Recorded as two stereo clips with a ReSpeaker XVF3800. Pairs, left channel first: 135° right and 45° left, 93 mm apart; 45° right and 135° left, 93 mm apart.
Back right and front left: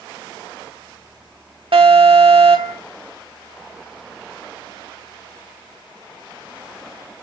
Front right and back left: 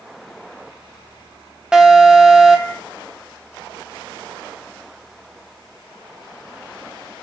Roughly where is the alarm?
Ahead left.